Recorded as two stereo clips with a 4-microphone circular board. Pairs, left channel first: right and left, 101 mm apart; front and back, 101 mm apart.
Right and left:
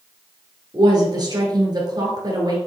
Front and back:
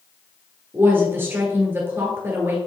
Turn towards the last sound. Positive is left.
turn(degrees=120)